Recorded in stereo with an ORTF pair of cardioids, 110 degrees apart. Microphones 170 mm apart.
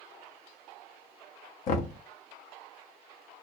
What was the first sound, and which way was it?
Knocking, 55° left.